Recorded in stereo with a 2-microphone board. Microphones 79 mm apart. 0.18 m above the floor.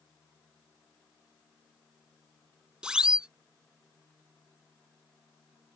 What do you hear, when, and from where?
2.8 s a siren: 10° right (ahead or behind)